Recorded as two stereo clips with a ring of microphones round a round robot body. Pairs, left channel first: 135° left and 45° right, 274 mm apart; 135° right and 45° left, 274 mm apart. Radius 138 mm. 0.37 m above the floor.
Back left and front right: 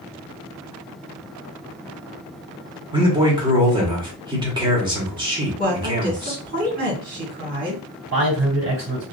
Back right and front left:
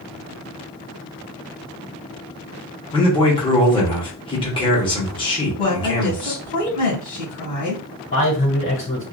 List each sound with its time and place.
2.9 s a man speaking: 95° right, 1.3 m
5.6 s a woman speaking: 65° right, 1.9 m
8.1 s a man speaking: 80° right, 1.8 m